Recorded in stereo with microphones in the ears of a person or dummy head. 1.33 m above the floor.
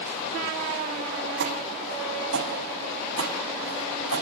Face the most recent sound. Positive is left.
turn(degrees=-75)  # may be behind; listen again after turning